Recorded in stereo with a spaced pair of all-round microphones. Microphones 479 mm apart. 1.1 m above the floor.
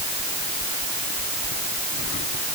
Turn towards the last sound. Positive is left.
No sound to turn to.